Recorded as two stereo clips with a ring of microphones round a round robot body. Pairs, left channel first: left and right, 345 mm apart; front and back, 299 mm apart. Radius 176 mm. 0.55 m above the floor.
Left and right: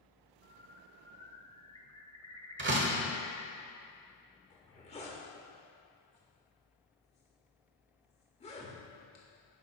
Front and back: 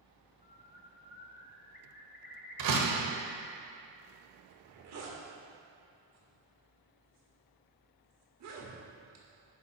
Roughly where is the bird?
Ahead.